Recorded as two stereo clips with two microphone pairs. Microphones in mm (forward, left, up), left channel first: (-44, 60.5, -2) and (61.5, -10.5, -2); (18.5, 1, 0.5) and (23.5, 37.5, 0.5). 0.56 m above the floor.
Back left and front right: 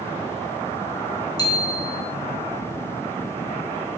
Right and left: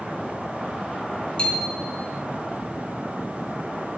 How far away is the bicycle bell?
About 4.5 m.